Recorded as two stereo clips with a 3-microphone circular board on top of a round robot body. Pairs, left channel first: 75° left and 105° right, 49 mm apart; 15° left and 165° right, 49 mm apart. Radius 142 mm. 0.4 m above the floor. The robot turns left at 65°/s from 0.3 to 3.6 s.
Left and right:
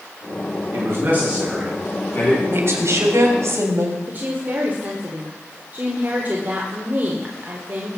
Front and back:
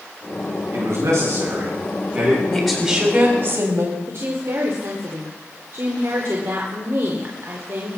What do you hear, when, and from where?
0.7 s a man speaking: 130° right, 6.5 m; by 2.4 s 125° left, 6.5 m
2.5 s a woman speaking: 65° right, 3.5 m; by 4.0 s 140° right, 3.5 m
4.1 s a woman speaking: 150° right, 2 m